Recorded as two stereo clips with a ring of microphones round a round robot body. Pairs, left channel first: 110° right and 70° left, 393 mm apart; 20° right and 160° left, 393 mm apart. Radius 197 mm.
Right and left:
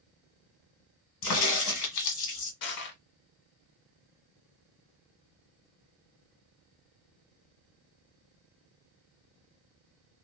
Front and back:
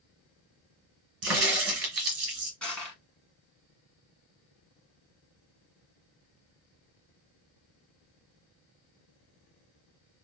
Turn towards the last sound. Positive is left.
turn(degrees=-110)